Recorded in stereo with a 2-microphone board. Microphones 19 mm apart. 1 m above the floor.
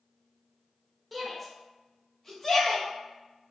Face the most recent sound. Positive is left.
turn(degrees=25)  # may be behind; listen again after turning